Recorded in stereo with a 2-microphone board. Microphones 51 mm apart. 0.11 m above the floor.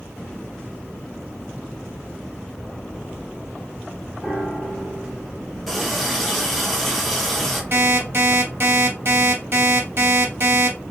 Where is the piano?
35° right (ahead or behind), 3 m.